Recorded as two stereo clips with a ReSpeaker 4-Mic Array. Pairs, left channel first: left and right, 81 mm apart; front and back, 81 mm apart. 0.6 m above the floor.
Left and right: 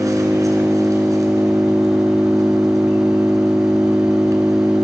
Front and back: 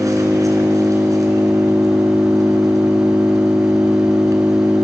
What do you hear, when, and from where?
0.0 s an engine running: 135° right, 3.5 m